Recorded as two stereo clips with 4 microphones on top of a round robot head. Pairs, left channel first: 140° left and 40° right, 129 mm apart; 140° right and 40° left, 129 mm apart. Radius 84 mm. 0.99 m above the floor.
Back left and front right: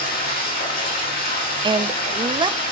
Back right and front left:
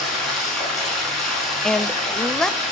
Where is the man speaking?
55° right, 1.0 m.